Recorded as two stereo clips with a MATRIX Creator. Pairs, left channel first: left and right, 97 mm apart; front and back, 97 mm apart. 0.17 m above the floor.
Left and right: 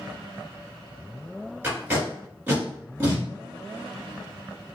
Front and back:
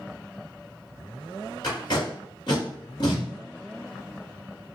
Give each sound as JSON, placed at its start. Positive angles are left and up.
{"t": 1.6, "sound": "tape being pulled", "azimuth_deg": -20, "distance_m": 1.7}